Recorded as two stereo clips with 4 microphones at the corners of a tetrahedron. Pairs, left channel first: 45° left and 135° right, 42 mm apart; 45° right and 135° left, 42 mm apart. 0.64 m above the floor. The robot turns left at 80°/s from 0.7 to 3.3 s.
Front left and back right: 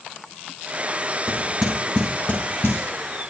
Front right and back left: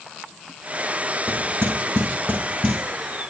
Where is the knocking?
170° right, 5.5 m; by 2.8 s 65° left, 5.5 m.